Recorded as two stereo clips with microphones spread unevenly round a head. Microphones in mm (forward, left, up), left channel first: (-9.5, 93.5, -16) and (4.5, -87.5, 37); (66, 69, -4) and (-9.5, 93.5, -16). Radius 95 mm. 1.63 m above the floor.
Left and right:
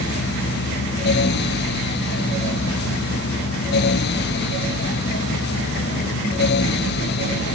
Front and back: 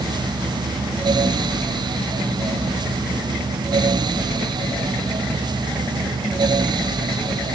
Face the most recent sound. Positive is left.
No sound to turn to.